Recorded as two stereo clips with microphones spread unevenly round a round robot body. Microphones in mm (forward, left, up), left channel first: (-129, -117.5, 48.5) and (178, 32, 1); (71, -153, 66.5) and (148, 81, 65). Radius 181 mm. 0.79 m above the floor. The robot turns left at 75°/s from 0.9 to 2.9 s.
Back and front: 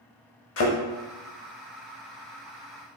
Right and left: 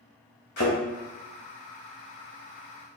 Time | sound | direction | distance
0.6 | a thud | 145° right | 0.7 m